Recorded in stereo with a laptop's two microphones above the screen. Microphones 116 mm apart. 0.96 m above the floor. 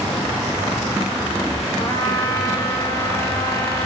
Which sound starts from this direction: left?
A trumpet, at 1.8 s.